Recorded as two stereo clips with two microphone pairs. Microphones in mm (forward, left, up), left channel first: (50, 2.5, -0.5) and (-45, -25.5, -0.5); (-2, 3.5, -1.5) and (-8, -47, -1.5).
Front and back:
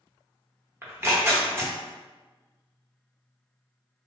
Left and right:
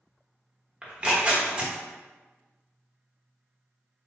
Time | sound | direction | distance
0.8 | tearing paper | 130° right | 0.9 m